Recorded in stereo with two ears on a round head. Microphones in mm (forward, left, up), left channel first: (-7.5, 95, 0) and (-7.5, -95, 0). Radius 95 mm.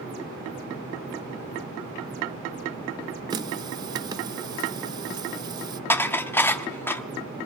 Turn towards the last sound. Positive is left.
turn(degrees=10)  # may be behind; listen again after turning